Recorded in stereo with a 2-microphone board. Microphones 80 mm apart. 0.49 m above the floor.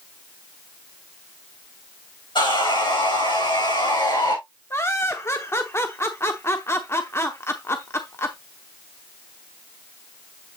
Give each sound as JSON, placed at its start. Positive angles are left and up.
{"t": 2.4, "sound": "sawing", "side_deg": 75, "distance_m": 6.5}
{"t": 4.7, "sound": "laughter", "side_deg": 30, "distance_m": 0.8}